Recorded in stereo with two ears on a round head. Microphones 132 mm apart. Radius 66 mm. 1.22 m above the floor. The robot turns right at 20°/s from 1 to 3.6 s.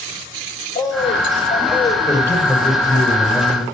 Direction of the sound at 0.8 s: 30° left (ahead or behind).